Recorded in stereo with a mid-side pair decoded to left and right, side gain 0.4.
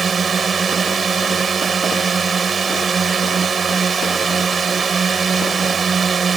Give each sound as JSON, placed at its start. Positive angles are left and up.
{"t": 0.0, "sound": "a drone", "azimuth_deg": -40}